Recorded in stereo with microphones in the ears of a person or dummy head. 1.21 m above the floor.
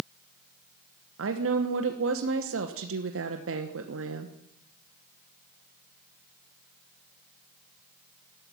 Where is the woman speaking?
60° right (ahead or behind), 1.1 m.